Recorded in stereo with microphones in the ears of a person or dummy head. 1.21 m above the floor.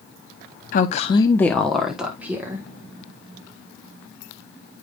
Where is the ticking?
No ticking in this recording.